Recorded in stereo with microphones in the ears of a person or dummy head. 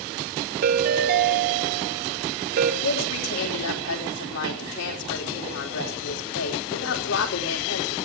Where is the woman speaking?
80° left, 4 m.